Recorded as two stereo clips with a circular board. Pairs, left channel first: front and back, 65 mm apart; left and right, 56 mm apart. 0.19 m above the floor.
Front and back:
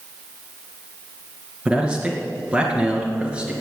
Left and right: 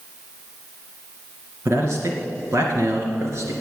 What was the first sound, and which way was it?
A man speaking, 110° right.